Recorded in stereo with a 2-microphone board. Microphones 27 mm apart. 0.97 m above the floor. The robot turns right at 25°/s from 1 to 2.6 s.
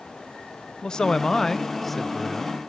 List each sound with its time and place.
0.8 s a man speaking: 150° left, 0.8 m; by 2.6 s 170° right, 0.8 m